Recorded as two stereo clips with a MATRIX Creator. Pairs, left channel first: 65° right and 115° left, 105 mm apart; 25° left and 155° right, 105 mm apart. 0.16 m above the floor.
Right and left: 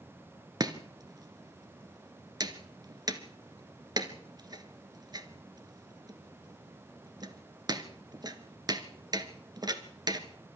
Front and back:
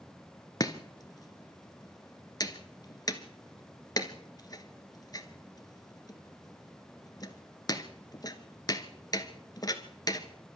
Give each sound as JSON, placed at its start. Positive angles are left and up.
{"t": 0.6, "sound": "chopping", "azimuth_deg": 70, "distance_m": 1.5}